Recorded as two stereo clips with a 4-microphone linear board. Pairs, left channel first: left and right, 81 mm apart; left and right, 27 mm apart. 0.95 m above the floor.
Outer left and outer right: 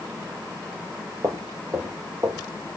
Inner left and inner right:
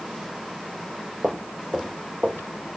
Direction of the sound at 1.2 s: 50° right (ahead or behind).